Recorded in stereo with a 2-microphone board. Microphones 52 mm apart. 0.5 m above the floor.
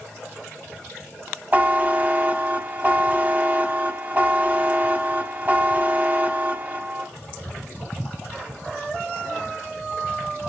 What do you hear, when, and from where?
1.5 s a buzzer: 30° right (ahead or behind), 1.3 m